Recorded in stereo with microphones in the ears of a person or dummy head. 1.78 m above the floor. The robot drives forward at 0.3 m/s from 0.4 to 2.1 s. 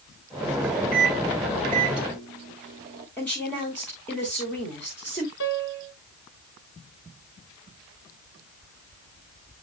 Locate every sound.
0.9 s a microwave: 50° right (ahead or behind), 0.6 m; by 3.1 s 35° right (ahead or behind), 0.9 m
3.2 s a woman speaking: 10° left (ahead or behind), 2 m
5.4 s a piano: 55° left (ahead or behind), 1.0 m